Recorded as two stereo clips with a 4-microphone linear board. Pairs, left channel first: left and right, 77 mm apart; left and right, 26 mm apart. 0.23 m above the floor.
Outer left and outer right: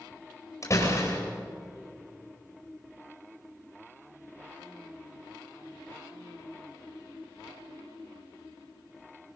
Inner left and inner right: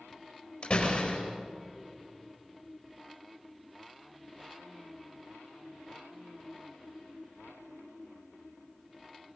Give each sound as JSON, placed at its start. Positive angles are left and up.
{"t": 0.6, "sound": "a door slam", "side_deg": 45, "distance_m": 4.5}